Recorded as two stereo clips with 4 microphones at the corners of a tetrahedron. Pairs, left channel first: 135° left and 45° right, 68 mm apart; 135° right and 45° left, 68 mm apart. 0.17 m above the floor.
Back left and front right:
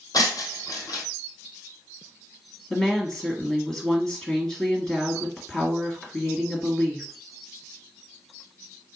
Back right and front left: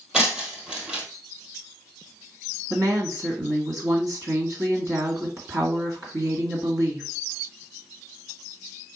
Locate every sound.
0.1 s breaking glass: 125° left, 1.4 m
2.7 s a woman speaking: 60° left, 1.8 m